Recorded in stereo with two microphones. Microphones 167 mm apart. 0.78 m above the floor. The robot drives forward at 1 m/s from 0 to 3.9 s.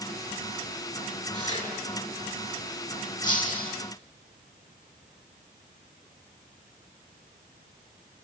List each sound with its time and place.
1.3 s tearing paper: 45° left (ahead or behind), 7 m
3.2 s breaking glass: 50° left (ahead or behind), 3.5 m; by 3.8 s 55° left (ahead or behind), 3 m